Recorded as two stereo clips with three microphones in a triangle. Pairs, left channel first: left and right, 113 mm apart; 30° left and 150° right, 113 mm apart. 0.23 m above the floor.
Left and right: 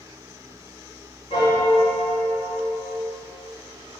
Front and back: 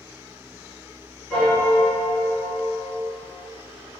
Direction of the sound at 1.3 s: 115° left.